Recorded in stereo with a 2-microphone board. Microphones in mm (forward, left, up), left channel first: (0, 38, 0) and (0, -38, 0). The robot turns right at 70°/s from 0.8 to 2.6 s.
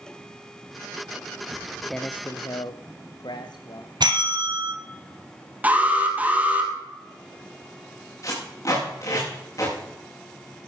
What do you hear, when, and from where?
1.5 s footsteps: 40° right (ahead or behind), 0.7 m; by 3.9 s 70° left (ahead or behind), 2.5 m
4.0 s a bell: 65° right (ahead or behind), 2 m
5.6 s an alarm: 20° right (ahead or behind), 3.5 m
8.2 s tape being pulled: 45° left (ahead or behind), 7.5 m